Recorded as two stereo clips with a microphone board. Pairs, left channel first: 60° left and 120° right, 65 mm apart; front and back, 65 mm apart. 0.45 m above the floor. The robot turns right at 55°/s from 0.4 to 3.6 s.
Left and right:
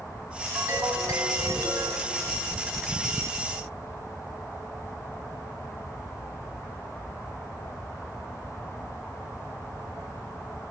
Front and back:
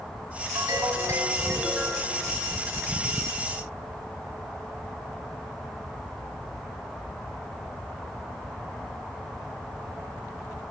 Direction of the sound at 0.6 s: 170° right.